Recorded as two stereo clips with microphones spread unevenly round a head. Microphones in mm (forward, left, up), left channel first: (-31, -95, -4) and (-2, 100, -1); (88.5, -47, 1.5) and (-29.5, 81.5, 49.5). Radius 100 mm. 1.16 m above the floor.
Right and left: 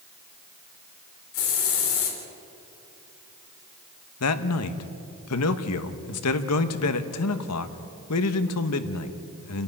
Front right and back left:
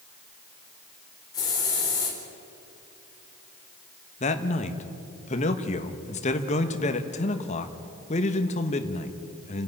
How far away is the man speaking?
About 1.3 m.